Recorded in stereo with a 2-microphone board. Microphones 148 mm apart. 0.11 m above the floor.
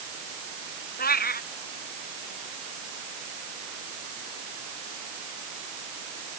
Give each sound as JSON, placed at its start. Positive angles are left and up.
{"t": 1.0, "sound": "a cat meowing", "side_deg": 85}